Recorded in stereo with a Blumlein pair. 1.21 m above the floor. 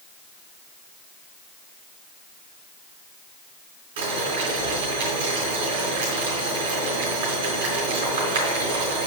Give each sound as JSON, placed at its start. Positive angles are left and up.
{"t": 4.0, "sound": "boiling", "azimuth_deg": -55, "distance_m": 3.5}